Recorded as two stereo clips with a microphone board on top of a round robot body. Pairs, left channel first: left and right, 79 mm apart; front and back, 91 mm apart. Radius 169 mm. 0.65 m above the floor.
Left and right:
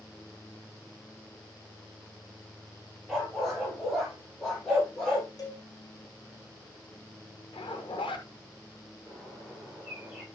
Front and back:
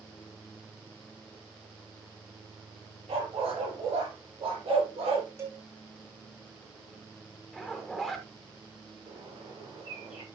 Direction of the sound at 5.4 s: 125° left.